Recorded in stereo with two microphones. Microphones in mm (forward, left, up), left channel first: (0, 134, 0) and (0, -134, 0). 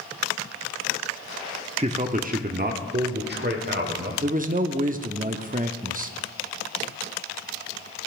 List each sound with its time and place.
1.8 s a man speaking: 25° right (ahead or behind), 0.7 m; by 4.1 s 40° right (ahead or behind), 1.7 m
4.2 s a man speaking: 30° right (ahead or behind), 0.6 m